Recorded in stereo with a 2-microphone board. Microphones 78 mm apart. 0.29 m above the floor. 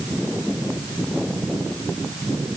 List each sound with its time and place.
Only background noise.